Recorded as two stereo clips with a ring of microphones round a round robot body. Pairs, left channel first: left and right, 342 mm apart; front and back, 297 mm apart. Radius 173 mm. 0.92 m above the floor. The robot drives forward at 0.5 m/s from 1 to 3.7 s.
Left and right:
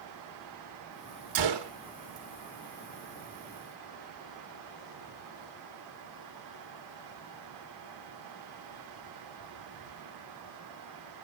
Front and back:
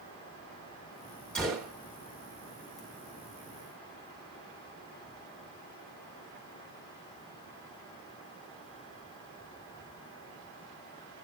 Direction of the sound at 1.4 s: 90° right.